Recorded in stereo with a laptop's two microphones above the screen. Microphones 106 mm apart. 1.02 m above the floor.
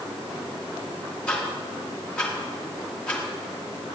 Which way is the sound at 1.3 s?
10° left (ahead or behind).